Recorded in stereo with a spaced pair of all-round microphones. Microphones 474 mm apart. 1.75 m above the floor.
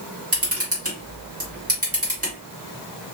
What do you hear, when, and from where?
0.3 s a camera shutter: 30° right (ahead or behind), 1.5 m